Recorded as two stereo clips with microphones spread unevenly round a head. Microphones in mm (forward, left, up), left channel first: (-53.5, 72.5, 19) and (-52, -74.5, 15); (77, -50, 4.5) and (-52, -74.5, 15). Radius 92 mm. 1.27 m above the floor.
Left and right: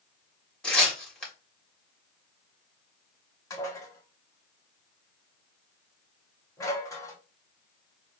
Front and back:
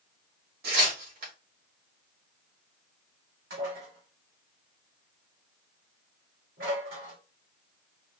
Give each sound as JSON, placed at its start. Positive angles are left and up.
{"t": 0.6, "sound": "tearing paper", "azimuth_deg": 175, "distance_m": 2.0}
{"t": 3.5, "sound": "dishes clattering", "azimuth_deg": 160, "distance_m": 1.9}